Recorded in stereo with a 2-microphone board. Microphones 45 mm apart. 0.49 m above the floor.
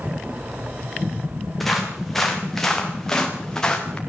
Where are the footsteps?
5° left (ahead or behind), 6 m; by 4.0 s 20° left (ahead or behind), 4 m.